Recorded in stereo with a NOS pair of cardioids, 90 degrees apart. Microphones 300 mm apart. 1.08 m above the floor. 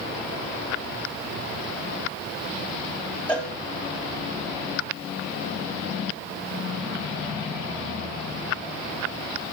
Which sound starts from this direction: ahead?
A cowbell, at 3.3 s.